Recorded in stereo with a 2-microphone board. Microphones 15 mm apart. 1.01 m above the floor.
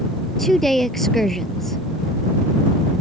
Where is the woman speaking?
25° left (ahead or behind).